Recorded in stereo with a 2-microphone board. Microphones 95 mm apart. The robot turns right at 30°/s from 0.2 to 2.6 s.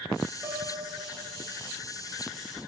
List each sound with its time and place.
0.4 s a piano: 150° right, 7.5 m; by 1.6 s 115° right, 7.5 m